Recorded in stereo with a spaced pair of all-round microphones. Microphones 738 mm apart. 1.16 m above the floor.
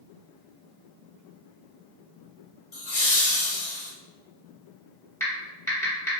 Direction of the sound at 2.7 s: 45° left (ahead or behind).